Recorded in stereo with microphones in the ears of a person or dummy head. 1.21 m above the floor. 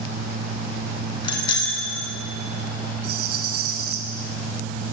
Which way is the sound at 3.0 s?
60° right (ahead or behind).